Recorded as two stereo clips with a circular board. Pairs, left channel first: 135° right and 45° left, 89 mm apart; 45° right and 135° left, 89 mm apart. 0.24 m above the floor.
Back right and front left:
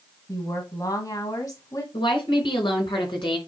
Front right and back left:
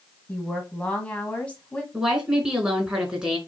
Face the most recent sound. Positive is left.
turn(degrees=-145)